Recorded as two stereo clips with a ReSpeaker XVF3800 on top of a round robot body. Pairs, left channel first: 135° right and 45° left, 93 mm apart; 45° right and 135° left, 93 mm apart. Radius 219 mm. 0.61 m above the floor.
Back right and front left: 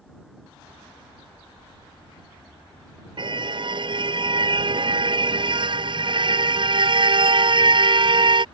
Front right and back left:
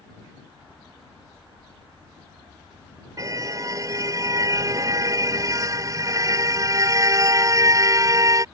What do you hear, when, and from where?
3.2 s a car horn: 80° left